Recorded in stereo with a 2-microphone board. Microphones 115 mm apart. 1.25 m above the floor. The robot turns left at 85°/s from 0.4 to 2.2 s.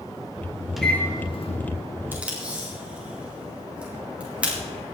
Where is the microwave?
Straight behind, 1.7 m; by 1.6 s 110° left, 1.7 m.